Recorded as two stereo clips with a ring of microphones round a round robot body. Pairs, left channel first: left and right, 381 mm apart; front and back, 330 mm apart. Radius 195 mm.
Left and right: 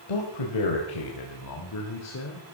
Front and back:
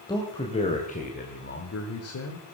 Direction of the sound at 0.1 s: 80° left.